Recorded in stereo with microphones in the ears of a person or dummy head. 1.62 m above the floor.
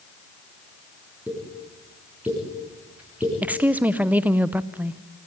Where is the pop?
10° right (ahead or behind), 7 m.